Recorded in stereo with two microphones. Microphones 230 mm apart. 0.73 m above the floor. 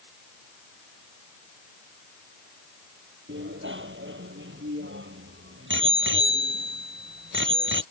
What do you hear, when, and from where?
3.3 s a bicycle bell: 55° right (ahead or behind)